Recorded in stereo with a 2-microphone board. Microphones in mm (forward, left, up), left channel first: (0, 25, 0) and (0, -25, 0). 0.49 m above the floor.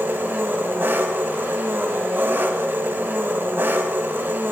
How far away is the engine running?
About 1.8 m.